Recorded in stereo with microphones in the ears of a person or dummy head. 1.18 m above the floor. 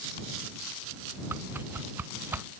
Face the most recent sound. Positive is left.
turn(degrees=-10)  # may be behind; listen again after turning